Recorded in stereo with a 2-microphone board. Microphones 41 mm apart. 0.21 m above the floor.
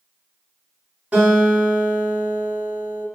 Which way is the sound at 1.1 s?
35° right (ahead or behind).